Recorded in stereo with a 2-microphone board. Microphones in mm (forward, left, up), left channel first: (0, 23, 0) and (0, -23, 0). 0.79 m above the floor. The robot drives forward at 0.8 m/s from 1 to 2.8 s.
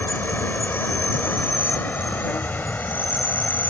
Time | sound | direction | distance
0.0 | an insect | 50° left (ahead or behind) | ?